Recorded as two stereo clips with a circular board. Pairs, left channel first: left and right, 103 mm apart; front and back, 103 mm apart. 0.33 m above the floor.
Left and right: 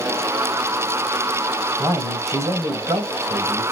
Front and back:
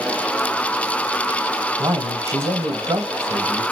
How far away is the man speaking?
About 1.4 m.